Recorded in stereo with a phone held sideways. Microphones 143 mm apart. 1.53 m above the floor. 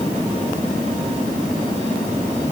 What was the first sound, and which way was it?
Only background noise.